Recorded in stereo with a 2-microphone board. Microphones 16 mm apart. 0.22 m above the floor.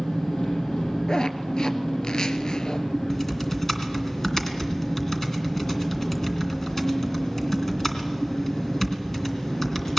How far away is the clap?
I don't hear a clap.